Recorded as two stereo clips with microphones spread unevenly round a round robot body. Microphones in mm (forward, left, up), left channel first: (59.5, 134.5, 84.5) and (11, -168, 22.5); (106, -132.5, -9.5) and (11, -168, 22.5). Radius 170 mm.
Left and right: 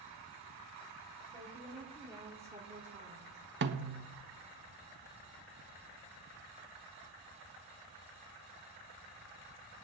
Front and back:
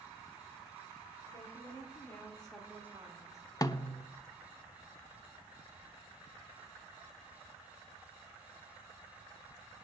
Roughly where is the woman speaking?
Ahead.